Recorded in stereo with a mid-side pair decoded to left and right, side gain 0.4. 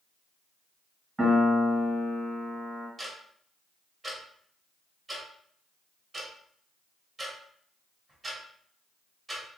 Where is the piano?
25° right, 1.5 m.